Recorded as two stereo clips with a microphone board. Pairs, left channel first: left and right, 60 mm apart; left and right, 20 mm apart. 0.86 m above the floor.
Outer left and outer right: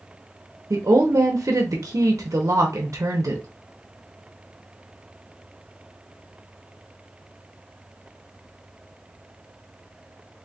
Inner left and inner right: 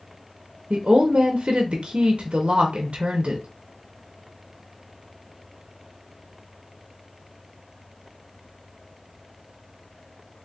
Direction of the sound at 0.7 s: 65° right (ahead or behind).